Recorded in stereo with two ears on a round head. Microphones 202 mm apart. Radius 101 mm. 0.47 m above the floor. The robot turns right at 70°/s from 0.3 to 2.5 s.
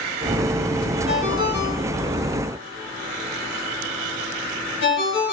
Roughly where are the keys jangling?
No keys jangling in this recording.